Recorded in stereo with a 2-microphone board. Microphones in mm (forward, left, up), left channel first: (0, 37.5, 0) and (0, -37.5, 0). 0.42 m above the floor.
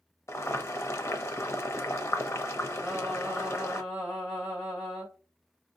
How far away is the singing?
About 2 m.